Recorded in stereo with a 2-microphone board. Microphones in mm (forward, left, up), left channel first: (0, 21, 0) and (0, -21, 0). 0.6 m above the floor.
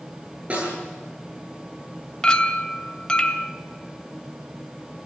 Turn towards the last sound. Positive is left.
turn(degrees=25)  # may be behind; listen again after turning